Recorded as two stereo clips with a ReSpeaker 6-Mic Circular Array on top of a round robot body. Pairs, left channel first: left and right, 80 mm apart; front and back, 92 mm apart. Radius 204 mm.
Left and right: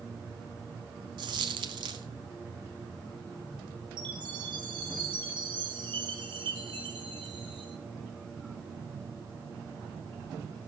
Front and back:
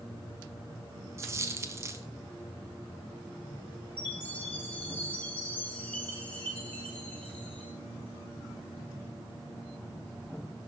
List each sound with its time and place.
1.2 s a dropped coin: 120° right, 0.6 m
4.0 s a chime: 75° right, 6 m